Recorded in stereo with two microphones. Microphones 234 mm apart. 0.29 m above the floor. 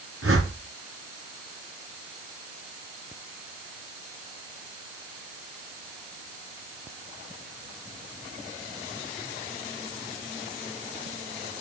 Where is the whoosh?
70° right (ahead or behind), 3.5 m.